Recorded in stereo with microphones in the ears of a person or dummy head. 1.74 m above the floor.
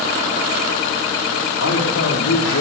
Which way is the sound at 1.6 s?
85° left.